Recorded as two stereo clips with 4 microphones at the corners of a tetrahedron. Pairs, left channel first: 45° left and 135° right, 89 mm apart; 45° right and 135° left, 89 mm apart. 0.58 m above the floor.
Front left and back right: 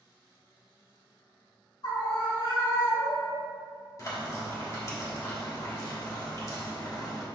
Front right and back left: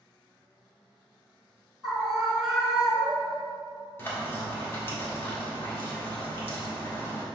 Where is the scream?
50° left, 1.5 m.